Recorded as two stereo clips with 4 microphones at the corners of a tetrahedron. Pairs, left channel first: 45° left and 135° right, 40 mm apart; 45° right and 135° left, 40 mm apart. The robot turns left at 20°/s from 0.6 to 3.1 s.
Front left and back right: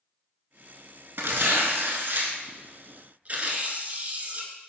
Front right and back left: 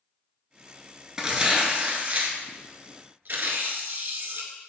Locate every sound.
1.2 s tearing paper: 150° right, 0.6 m; by 4.5 s 175° left, 0.6 m